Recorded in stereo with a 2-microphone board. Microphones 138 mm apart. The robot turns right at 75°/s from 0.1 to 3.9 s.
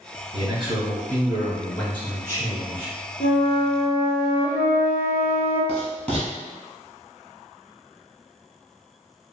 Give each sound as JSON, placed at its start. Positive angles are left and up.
{"t": 0.3, "sound": "a man speaking", "azimuth_deg": -105, "distance_m": 1.5}
{"t": 3.2, "sound": "a flute", "azimuth_deg": 80, "distance_m": 1.4}
{"t": 5.7, "sound": "writing", "side_deg": 10, "distance_m": 1.4}